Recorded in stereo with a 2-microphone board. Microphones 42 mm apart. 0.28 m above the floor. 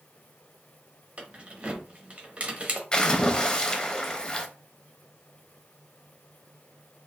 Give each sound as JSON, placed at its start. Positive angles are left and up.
{"t": 1.2, "sound": "keys jangling", "side_deg": -30, "distance_m": 0.7}
{"t": 2.9, "sound": "a splash", "side_deg": 20, "distance_m": 0.6}